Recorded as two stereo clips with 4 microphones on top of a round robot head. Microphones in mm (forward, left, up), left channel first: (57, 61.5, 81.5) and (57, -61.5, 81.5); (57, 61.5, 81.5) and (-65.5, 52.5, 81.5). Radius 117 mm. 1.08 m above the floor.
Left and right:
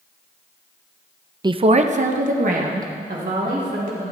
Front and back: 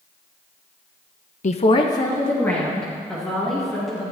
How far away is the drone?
No drone in this recording.